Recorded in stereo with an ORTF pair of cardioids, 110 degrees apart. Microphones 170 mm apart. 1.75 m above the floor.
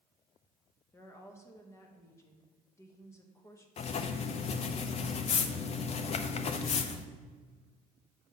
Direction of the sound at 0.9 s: 15° left.